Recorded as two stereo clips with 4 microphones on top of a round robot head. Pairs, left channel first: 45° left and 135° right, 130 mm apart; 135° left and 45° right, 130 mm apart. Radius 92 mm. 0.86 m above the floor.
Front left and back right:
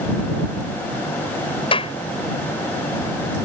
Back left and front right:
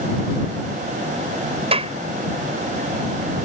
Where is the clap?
Straight ahead.